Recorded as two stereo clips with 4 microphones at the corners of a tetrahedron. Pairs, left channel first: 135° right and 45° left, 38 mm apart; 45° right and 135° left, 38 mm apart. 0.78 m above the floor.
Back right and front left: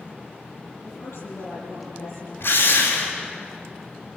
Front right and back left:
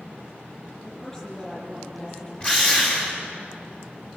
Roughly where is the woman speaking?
Behind right.